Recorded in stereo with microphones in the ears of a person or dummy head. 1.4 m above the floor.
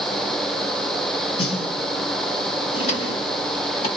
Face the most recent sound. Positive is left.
turn(degrees=40)  # may be behind; listen again after turning